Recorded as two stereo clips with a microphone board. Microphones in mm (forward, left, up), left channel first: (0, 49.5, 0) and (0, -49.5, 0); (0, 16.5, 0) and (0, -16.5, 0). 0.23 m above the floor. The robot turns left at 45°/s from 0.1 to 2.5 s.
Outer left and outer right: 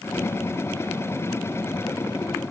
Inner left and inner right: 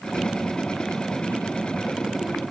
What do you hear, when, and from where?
Only background noise.